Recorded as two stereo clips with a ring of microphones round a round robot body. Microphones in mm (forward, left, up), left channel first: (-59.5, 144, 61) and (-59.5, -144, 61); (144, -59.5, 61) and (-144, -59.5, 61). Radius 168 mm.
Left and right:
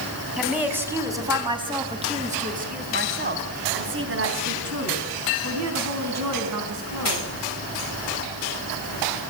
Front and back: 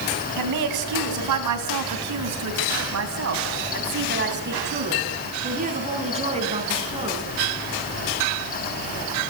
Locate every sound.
0.4 s a woman speaking: 175° right, 4 m; by 7.3 s 105° right, 5 m